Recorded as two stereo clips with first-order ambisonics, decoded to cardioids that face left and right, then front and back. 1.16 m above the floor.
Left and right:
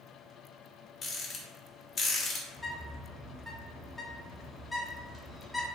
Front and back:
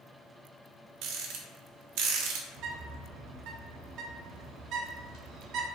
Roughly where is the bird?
Behind.